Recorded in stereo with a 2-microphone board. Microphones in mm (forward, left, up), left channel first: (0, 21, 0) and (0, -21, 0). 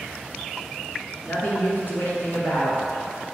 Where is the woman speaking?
45° left (ahead or behind), 1.6 m.